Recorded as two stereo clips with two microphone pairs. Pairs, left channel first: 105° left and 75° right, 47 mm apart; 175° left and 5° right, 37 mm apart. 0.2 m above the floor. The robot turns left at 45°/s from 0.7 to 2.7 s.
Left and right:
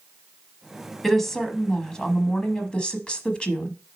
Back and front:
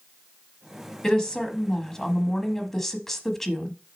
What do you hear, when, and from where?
1.0 s a woman speaking: 170° right, 1.0 m; by 3.7 s 115° left, 1.0 m